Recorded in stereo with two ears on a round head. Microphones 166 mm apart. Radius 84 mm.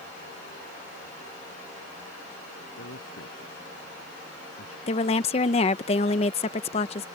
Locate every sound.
2.8 s a man speaking: 80° left
4.9 s a woman speaking: 30° left (ahead or behind)